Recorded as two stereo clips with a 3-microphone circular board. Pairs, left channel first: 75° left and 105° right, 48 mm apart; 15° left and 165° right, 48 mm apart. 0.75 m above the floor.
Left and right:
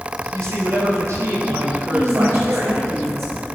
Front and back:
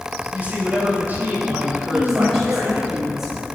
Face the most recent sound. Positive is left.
turn(degrees=-80)